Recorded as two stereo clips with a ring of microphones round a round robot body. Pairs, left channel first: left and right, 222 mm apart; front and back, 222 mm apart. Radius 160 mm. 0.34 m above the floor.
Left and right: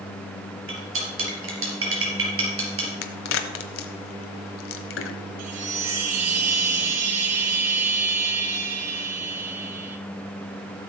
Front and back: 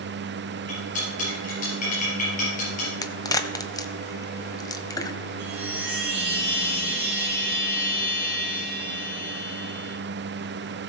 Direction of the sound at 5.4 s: 120° right.